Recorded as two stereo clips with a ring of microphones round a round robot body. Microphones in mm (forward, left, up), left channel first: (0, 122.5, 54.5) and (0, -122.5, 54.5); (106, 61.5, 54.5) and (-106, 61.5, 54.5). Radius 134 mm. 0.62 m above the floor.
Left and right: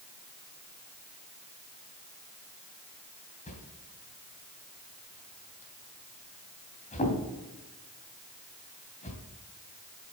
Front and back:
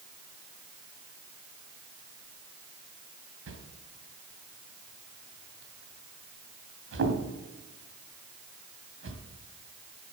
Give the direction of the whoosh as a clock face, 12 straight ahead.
7 o'clock.